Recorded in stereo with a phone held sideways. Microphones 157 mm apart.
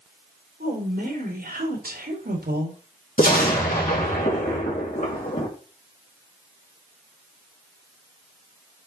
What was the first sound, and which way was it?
A woman speaking, 65° right (ahead or behind).